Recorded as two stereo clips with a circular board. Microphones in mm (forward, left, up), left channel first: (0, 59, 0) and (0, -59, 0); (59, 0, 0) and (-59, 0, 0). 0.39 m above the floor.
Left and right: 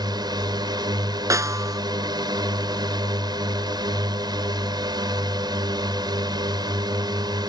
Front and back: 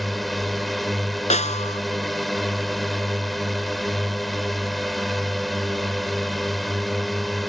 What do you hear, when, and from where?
0.0 s a drone: 90° right
1.3 s a snare drum: 25° right